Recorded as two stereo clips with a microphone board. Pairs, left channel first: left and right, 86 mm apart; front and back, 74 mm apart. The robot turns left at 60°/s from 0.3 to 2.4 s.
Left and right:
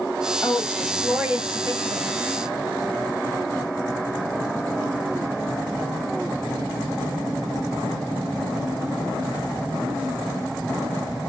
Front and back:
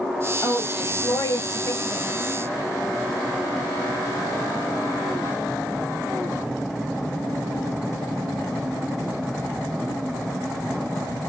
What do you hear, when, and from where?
0.4 s a woman speaking: 35° left, 1.9 m; by 2.1 s 65° right, 1.9 m